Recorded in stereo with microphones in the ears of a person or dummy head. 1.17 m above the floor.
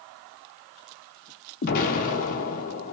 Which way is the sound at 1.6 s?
45° left (ahead or behind).